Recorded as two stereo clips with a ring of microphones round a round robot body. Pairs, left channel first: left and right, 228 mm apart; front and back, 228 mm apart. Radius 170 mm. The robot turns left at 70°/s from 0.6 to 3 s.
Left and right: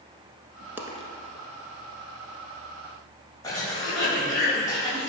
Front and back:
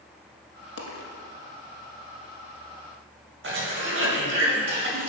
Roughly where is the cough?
Behind.